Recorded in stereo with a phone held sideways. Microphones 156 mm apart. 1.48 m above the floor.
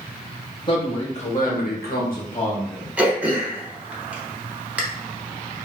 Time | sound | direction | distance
0.7 | a man speaking | 30° left (ahead or behind) | 1.4 m
3.0 | throat clearing | 10° right (ahead or behind) | 0.7 m